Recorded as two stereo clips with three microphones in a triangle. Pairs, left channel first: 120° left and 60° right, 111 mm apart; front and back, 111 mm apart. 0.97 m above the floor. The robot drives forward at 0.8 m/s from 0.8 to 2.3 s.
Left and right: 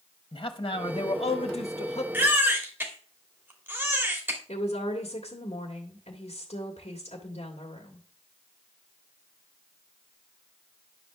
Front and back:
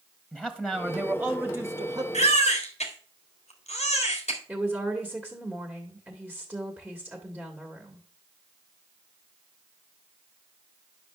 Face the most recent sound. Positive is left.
turn(degrees=95)